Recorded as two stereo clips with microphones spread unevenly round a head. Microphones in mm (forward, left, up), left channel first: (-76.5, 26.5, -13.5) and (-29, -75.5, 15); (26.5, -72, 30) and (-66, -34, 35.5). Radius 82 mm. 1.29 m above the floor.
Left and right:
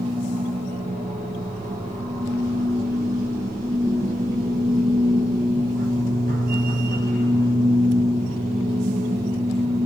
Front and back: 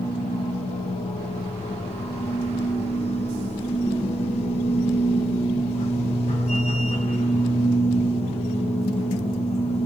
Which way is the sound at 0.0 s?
30° right.